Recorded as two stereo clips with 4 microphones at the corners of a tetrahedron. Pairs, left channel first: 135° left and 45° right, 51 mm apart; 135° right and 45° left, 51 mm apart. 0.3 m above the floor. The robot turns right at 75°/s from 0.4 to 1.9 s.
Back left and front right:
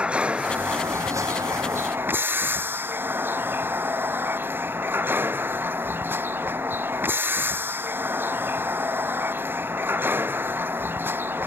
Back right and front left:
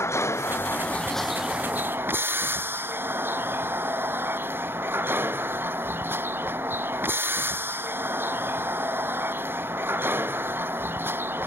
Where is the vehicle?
110° right; by 11.5 s straight ahead.